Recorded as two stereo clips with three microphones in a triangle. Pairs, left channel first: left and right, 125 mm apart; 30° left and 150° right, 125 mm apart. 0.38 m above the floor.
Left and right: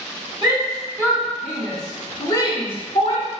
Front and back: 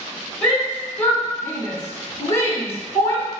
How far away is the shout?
About 1.4 m.